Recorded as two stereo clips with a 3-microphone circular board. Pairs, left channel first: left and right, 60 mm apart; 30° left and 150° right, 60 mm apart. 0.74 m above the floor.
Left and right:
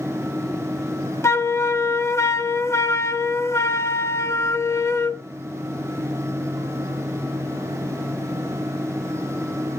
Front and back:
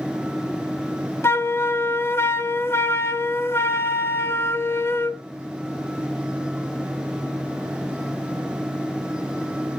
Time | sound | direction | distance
1.2 | a flute | 65° left | 0.7 m